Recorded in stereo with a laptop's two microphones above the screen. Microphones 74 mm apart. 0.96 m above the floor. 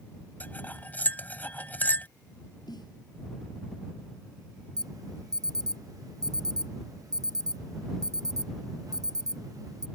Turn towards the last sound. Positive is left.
turn(degrees=-55)  # may be behind; listen again after turning